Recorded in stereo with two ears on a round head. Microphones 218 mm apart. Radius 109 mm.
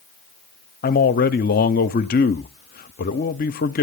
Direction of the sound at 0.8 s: 35° left (ahead or behind).